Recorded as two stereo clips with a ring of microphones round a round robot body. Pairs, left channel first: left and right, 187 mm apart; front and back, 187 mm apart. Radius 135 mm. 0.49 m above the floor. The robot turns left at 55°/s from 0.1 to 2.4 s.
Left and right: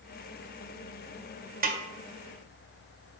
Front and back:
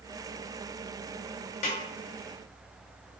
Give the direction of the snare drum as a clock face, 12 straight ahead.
2 o'clock.